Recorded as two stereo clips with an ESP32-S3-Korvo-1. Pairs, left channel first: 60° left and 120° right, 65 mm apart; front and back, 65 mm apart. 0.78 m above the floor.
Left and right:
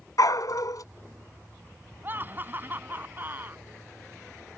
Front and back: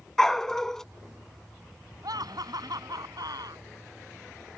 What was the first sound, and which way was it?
A dog barking, 80° left.